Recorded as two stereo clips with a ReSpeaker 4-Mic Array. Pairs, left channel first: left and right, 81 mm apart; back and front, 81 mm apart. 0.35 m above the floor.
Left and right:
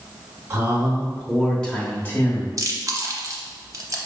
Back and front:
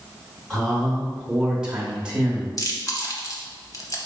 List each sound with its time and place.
0.5 s a man speaking: 90° right, 0.9 m; by 2.5 s 65° left, 1.0 m
2.6 s chewing: 135° right, 0.7 m